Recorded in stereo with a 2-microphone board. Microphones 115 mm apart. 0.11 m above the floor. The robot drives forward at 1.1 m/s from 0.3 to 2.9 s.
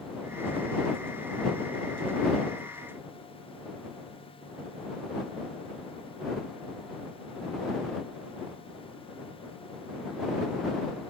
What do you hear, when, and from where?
Only background noise.